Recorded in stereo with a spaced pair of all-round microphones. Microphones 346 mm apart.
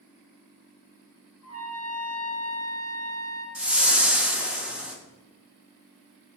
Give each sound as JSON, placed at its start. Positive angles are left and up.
{"t": 1.4, "sound": "a trumpet", "side_deg": 45, "distance_m": 1.7}
{"t": 3.5, "sound": "a whoosh", "side_deg": -5, "distance_m": 1.0}